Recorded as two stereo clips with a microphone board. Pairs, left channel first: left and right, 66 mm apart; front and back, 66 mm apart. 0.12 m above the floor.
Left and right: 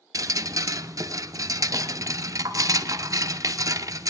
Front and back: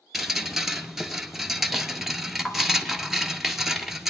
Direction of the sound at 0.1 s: 95° right.